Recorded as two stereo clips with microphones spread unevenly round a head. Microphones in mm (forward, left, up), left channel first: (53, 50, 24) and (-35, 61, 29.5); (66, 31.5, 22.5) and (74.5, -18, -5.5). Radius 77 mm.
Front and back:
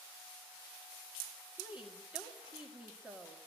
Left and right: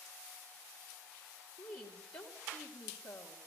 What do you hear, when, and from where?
1.6 s a woman speaking: 95° left, 2 m